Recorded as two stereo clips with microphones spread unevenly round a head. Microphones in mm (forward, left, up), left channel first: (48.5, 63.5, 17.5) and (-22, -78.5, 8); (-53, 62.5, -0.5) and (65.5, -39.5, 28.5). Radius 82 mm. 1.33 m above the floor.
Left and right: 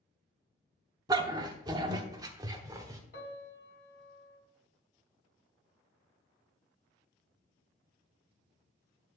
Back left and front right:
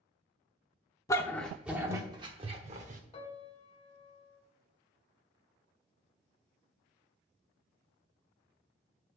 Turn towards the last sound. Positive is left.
turn(degrees=75)